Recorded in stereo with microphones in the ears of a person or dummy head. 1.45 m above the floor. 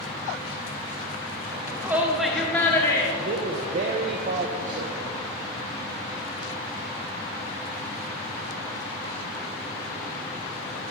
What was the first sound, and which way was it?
A shout, 25° right (ahead or behind).